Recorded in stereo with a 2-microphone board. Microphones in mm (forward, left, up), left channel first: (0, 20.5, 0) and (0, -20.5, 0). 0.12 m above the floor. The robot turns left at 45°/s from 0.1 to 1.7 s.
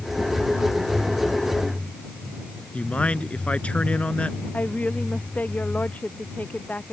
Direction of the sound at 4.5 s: 35° left (ahead or behind).